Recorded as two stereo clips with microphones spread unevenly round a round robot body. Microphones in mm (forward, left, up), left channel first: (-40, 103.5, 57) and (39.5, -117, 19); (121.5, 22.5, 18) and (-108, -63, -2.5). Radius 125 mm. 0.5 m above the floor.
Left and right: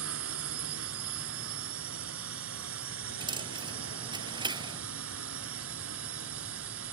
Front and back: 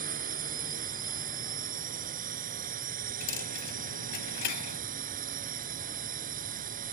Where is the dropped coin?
5° left.